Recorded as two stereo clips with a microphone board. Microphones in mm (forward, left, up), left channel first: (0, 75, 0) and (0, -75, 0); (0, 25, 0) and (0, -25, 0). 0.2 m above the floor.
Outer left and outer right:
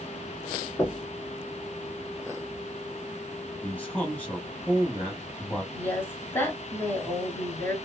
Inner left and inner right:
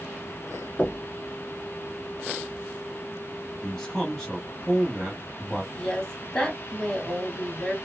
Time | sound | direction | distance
0.8 | knocking | 20° left (ahead or behind) | 1.7 m
3.6 | a man speaking | 10° left (ahead or behind) | 1.0 m
5.7 | a woman speaking | 15° left (ahead or behind) | 1.4 m